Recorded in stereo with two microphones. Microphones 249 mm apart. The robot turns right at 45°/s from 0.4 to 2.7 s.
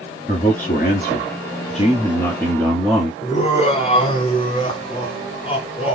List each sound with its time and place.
0.3 s a man speaking: 75° left, 1.4 m; by 3.1 s 175° left, 1.4 m
3.2 s laughter: 25° left (ahead or behind), 1.3 m